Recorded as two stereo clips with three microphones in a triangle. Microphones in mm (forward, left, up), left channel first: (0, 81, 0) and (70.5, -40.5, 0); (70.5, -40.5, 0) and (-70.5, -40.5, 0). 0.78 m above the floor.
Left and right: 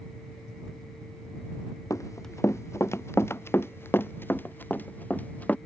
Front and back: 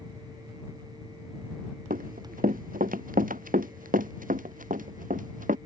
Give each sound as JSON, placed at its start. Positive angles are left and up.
{"t": 1.9, "sound": "running footsteps", "azimuth_deg": -170}